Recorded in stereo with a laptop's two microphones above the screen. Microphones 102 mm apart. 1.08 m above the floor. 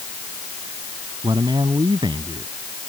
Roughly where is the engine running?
No engine running in this recording.